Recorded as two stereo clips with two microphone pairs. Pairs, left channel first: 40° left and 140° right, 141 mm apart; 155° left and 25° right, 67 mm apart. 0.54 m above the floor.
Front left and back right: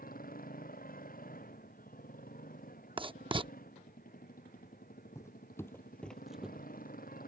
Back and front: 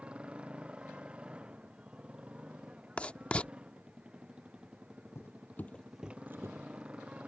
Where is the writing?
150° right.